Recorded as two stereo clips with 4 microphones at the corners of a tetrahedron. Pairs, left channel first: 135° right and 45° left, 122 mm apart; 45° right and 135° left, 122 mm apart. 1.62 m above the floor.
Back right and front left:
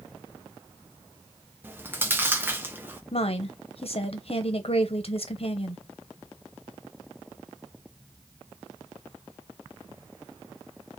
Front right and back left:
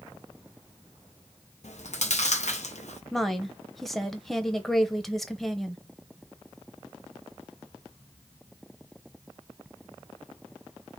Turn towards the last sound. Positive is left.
turn(degrees=-135)